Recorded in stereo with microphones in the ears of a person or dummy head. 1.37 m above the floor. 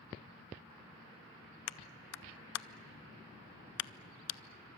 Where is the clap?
65° left (ahead or behind), 0.6 m.